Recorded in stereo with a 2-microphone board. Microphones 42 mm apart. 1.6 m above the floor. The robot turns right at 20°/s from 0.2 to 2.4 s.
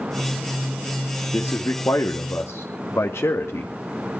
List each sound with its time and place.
1.3 s a man speaking: 70° left (ahead or behind), 2 m; by 3.7 s 80° left, 2 m